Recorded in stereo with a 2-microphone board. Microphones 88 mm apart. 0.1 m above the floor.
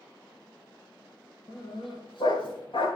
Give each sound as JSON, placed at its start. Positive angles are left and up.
{"t": 1.5, "sound": "a dog barking", "side_deg": 65, "distance_m": 6.5}